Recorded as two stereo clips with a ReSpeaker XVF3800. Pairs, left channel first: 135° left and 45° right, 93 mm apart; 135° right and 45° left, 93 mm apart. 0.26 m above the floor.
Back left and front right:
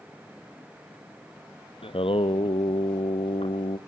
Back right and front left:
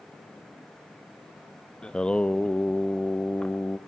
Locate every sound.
1.8 s singing: 145° left, 1.1 m